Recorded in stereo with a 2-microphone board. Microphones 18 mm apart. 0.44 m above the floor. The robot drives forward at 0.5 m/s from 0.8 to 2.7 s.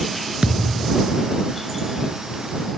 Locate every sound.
0.4 s a thud: 75° right (ahead or behind)